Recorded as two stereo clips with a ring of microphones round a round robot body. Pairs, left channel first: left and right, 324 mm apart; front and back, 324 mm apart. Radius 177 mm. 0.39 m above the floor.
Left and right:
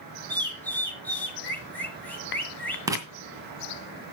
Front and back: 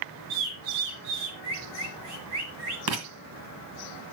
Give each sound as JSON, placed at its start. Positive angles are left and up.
{"t": 0.3, "sound": "a bird", "azimuth_deg": 175, "distance_m": 2.5}
{"t": 2.9, "sound": "writing", "azimuth_deg": -170, "distance_m": 2.0}